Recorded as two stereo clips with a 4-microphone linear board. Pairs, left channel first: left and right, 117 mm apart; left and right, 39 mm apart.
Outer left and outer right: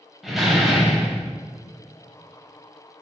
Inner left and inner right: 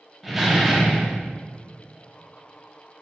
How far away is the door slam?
About 1.7 m.